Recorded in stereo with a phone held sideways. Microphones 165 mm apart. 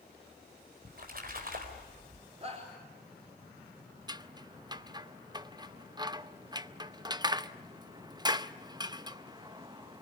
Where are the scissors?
25° right (ahead or behind), 0.6 m.